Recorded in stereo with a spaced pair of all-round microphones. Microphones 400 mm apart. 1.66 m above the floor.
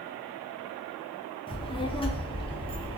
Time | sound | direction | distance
1.5 | a child speaking | 15° left (ahead or behind) | 0.6 m